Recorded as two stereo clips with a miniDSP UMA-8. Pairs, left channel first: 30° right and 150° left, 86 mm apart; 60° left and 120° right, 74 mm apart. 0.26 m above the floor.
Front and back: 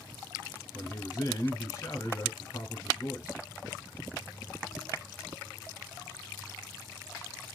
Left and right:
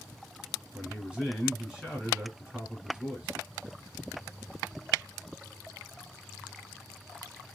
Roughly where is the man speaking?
Ahead right.